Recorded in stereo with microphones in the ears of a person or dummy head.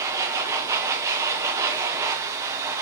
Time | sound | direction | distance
0.0 | a machine running | 20° right (ahead or behind) | 0.7 m